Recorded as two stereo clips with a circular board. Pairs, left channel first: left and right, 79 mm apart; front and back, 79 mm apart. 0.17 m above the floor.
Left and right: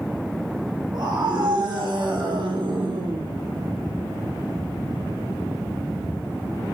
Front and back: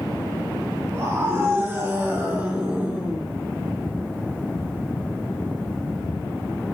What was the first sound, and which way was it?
A scream, 120° right.